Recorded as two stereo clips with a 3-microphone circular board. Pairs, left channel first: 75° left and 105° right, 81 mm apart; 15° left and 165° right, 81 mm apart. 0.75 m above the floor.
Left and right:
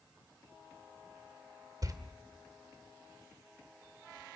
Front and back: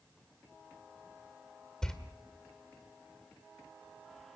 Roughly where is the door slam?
Ahead right.